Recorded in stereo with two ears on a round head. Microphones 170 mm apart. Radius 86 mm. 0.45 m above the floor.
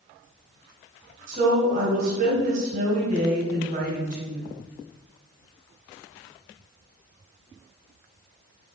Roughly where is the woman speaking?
Right.